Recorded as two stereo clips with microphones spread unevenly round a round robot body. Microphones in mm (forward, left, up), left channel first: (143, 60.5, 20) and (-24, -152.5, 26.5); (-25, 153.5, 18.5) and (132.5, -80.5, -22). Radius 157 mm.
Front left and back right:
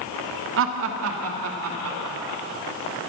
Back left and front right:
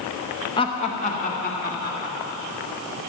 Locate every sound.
0.6 s laughter: 160° right, 1.0 m; by 2.4 s 170° right, 3 m